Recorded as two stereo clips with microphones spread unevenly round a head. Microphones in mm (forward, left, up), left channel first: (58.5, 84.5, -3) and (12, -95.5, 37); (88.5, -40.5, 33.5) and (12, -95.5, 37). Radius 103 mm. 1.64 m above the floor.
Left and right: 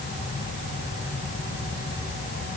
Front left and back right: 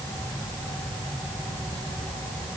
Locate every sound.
Only background noise.